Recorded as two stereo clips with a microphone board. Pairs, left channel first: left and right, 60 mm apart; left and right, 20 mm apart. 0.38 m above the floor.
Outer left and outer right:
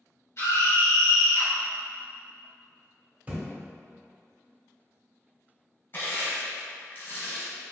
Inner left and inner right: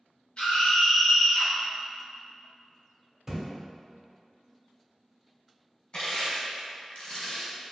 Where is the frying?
I don't hear frying.